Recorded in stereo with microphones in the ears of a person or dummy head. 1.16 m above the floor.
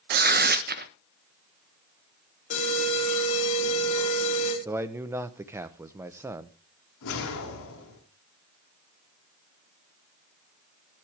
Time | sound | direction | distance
0.1 | tearing paper | 40° right (ahead or behind) | 0.6 m
2.5 | an alarm | 40° left (ahead or behind) | 4 m
4.7 | a man speaking | 10° right (ahead or behind) | 0.7 m
7.0 | a whoosh | 65° left (ahead or behind) | 3.5 m